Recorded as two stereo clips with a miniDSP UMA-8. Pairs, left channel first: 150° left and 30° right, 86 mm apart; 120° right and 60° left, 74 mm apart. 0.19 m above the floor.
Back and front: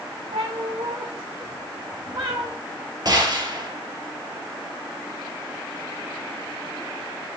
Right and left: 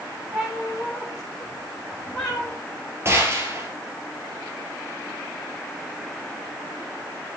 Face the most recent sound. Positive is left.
turn(degrees=5)